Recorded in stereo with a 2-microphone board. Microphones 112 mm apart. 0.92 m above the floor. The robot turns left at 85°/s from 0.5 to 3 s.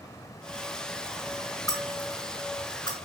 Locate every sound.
1.7 s breaking glass: 35° left (ahead or behind), 3 m